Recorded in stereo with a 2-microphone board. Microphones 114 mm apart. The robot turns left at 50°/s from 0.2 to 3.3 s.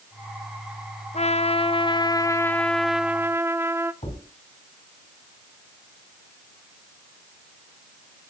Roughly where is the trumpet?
Left.